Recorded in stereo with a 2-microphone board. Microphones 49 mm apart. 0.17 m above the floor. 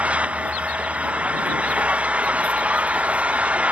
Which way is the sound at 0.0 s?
30° right (ahead or behind).